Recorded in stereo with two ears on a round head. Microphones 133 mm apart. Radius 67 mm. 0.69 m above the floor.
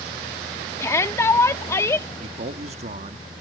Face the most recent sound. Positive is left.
turn(degrees=-45)  # may be behind; listen again after turning